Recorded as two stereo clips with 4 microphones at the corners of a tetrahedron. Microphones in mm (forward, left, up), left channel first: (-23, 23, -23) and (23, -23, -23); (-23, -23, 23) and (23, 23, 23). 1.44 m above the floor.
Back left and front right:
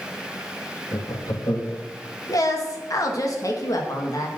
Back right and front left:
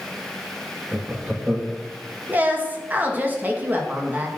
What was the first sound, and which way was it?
Laughter, 120° left.